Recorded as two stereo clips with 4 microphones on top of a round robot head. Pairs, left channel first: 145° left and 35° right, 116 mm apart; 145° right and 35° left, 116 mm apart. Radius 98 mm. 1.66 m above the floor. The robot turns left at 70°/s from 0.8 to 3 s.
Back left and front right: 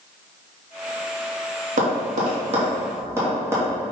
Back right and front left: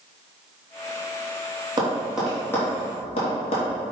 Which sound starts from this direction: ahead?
Tapping, at 1.8 s.